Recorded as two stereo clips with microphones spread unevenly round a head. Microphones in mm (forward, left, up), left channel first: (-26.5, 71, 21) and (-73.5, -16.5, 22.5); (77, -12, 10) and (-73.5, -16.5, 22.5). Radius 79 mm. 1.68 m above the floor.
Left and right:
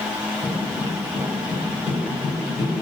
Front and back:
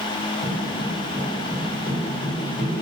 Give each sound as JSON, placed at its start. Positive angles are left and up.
{"t": 0.4, "sound": "footsteps", "azimuth_deg": 115, "distance_m": 1.7}